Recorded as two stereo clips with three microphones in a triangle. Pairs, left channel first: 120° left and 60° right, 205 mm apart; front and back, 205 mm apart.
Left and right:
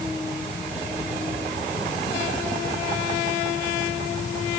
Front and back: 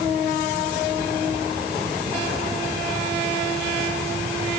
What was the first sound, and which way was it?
Only background noise.